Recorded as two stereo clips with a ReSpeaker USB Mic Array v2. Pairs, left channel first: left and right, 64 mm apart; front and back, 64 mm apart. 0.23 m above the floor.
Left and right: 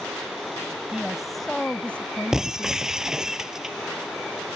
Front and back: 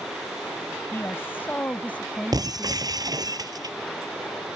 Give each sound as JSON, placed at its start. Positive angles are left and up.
{"t": 0.9, "sound": "a woman speaking", "azimuth_deg": -20}
{"t": 2.3, "sound": "breaking glass", "azimuth_deg": -170}